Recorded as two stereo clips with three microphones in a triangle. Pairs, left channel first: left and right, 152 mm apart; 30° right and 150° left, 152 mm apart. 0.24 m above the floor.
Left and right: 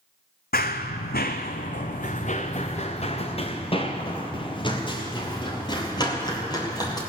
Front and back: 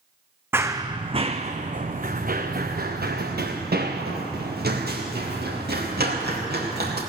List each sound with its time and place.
0.5 s running footsteps: 75° left, 0.9 m; by 7.0 s 155° left, 4 m